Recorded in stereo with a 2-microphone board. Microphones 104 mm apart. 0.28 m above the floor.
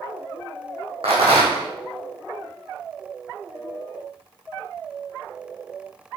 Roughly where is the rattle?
Right.